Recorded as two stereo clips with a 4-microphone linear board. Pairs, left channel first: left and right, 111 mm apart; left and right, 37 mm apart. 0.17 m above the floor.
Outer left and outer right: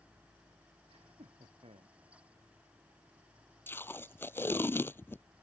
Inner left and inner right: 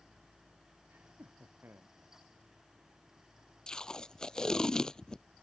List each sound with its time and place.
0.9 s laughter: 55° right (ahead or behind); by 2.0 s 60° right (ahead or behind)
3.7 s tape being pulled: 20° left (ahead or behind)